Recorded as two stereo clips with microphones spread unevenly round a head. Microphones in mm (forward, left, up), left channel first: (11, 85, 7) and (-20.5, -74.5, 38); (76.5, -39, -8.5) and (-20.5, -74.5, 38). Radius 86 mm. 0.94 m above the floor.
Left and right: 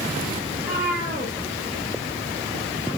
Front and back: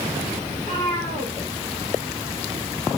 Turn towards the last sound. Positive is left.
turn(degrees=170)